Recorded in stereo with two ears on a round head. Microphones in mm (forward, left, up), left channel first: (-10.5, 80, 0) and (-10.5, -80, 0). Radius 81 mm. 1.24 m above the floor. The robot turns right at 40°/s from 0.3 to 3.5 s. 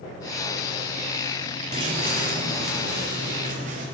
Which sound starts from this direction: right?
Footsteps, at 1.7 s.